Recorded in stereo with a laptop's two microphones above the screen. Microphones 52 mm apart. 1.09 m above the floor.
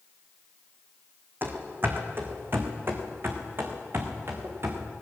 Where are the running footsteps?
40° right (ahead or behind), 3 m; by 4.9 s 50° right (ahead or behind), 4.5 m.